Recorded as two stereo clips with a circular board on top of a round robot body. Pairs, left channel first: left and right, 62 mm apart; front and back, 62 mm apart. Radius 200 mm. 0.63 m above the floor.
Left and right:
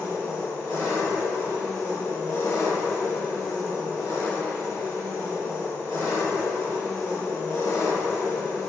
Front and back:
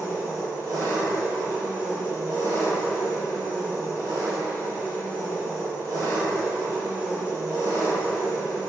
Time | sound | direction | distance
0.0 | an engine running | 150° left | 1.0 m